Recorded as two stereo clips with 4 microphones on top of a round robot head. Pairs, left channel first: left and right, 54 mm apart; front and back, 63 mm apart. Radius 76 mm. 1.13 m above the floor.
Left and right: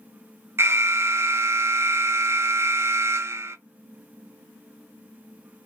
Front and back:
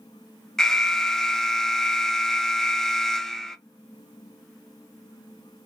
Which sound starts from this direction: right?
An alarm, at 0.6 s.